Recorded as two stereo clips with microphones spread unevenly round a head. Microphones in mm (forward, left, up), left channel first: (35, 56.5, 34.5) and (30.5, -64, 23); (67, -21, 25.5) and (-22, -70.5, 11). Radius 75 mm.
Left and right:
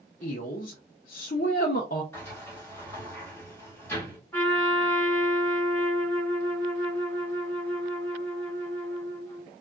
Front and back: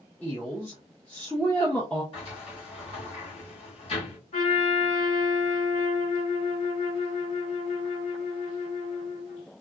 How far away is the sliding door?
About 2.5 m.